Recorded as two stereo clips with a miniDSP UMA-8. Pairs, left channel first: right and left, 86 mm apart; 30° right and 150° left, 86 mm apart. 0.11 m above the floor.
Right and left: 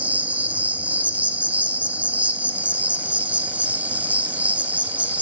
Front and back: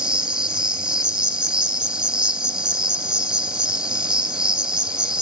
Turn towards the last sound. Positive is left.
turn(degrees=95)